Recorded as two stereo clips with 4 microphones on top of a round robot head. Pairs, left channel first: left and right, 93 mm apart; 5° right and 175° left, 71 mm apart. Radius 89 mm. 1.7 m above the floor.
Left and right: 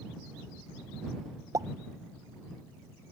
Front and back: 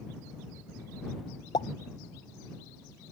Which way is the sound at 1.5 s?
30° right.